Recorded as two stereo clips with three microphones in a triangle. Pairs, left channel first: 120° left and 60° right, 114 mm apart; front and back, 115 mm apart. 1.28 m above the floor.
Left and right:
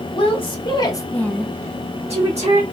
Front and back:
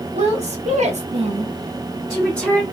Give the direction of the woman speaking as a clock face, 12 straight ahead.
7 o'clock.